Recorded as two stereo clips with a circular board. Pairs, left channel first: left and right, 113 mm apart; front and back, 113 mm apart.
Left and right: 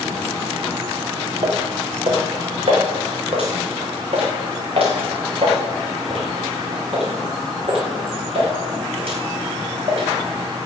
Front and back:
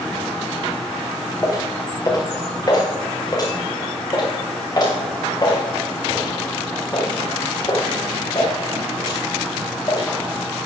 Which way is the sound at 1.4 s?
65° right.